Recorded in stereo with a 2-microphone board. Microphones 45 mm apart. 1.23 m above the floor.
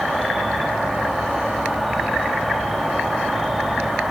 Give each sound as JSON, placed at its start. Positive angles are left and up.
{"t": 0.0, "sound": "an insect", "side_deg": 0, "distance_m": 4.0}